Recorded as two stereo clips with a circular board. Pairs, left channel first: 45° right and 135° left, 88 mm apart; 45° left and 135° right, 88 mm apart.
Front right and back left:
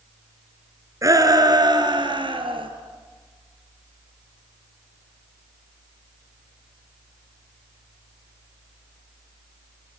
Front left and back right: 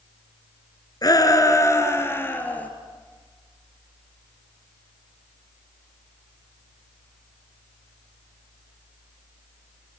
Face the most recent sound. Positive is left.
turn(degrees=120)